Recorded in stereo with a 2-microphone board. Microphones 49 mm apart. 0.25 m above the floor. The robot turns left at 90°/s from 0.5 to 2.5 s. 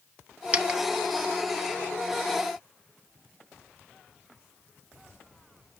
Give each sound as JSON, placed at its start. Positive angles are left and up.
{"t": 0.5, "sound": "a dropped coin", "side_deg": -25, "distance_m": 0.9}